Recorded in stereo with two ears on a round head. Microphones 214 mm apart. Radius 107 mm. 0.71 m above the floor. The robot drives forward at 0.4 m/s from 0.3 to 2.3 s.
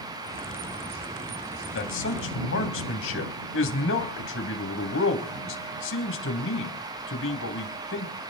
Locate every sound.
1.8 s a man speaking: 55° left (ahead or behind), 3.5 m